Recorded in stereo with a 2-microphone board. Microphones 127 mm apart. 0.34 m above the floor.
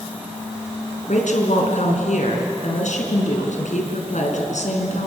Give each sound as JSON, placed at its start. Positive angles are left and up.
{"t": 1.1, "sound": "a woman speaking", "side_deg": 75, "distance_m": 4.5}